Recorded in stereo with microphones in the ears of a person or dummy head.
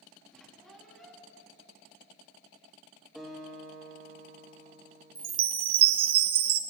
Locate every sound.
0.3 s a squeak: 5° left (ahead or behind), 2.5 m
3.1 s a guitar: 5° left (ahead or behind), 5 m
5.2 s a chime: 30° right (ahead or behind), 0.5 m